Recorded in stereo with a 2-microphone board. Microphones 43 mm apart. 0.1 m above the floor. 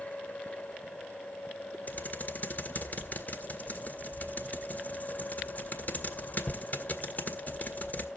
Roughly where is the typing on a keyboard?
Left.